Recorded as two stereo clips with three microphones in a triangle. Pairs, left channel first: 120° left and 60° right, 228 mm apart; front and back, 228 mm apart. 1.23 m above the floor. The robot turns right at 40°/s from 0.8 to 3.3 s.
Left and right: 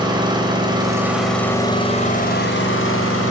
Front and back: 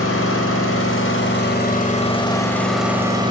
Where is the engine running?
10° left, 4.5 m; by 3.3 s 110° left, 4.5 m.